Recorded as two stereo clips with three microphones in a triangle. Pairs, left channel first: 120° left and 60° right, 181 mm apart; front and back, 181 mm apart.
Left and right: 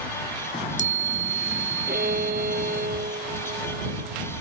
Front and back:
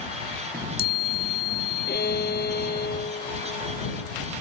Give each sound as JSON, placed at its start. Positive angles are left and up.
{"t": 0.5, "sound": "a chime", "azimuth_deg": 160}
{"t": 1.9, "sound": "a violin", "azimuth_deg": -25}